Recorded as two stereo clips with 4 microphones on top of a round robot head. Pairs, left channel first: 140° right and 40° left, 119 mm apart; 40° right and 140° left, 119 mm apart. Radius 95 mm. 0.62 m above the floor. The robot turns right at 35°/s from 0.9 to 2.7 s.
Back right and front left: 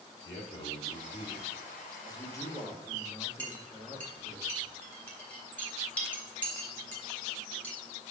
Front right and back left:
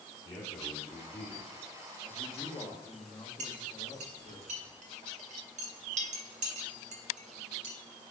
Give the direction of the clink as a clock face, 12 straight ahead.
7 o'clock.